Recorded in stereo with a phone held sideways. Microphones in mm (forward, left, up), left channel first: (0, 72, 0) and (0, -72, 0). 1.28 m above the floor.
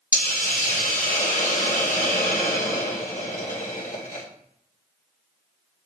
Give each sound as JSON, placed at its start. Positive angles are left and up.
{"t": 0.1, "sound": "a hiss", "side_deg": 65, "distance_m": 1.9}